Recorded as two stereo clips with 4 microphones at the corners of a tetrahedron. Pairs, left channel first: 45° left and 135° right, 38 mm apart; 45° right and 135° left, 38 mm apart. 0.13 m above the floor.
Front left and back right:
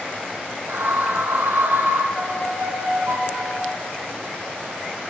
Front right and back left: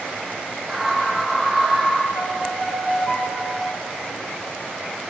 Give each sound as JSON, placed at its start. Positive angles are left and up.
{"t": 0.7, "sound": "a scream", "azimuth_deg": -145, "distance_m": 5.5}
{"t": 2.1, "sound": "a violin", "azimuth_deg": -125, "distance_m": 6.5}